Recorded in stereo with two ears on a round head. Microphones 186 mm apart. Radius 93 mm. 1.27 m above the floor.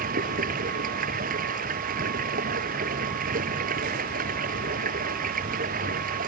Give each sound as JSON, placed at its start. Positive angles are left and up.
{"t": 0.0, "sound": "running water", "side_deg": -40}